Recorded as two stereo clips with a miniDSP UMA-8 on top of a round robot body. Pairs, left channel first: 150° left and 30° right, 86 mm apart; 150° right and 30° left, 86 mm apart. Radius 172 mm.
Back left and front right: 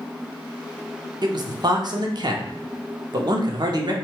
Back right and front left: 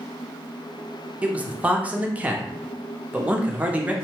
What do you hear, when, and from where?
1.2 s a man speaking: 40° right, 0.8 m